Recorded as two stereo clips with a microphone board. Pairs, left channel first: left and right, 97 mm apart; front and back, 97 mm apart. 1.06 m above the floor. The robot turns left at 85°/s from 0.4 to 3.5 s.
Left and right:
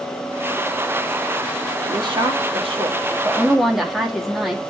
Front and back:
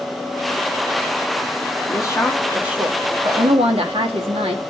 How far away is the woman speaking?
About 2.5 m.